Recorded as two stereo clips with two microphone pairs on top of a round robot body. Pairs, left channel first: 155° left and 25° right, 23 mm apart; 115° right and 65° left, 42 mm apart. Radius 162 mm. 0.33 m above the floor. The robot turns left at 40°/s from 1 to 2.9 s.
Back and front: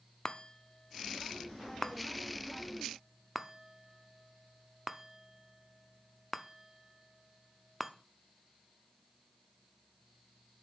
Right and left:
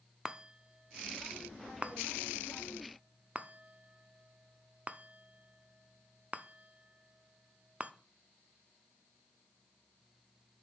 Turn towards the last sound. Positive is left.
turn(degrees=45)